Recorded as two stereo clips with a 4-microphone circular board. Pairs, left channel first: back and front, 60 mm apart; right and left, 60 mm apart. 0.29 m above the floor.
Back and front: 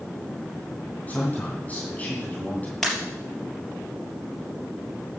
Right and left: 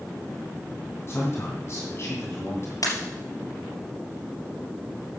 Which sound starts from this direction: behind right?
A man speaking, at 1.1 s.